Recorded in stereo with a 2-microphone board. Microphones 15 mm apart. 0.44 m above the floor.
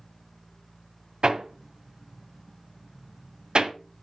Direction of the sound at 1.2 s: 70° right (ahead or behind).